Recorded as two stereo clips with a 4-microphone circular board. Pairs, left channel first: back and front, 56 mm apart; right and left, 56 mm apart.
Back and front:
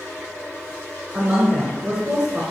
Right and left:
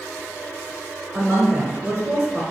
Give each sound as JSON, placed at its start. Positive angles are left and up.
{"t": 1.1, "sound": "a woman speaking", "azimuth_deg": 45, "distance_m": 1.2}